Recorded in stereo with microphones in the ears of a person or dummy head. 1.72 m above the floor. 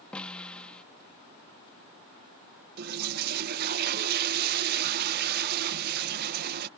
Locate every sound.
0.1 s a snare drum: 5° left (ahead or behind)
2.8 s a toilet flushing: 55° right (ahead or behind)